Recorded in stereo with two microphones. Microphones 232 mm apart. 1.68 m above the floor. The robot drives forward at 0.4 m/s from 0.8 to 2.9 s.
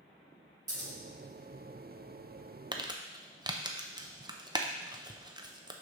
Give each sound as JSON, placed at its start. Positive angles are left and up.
{"t": 0.7, "sound": "scissors", "side_deg": -80, "distance_m": 2.0}
{"t": 2.7, "sound": "crumpling", "side_deg": -20, "distance_m": 0.6}